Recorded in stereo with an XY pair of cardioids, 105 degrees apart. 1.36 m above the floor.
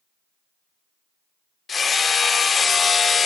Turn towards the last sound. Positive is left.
turn(degrees=40)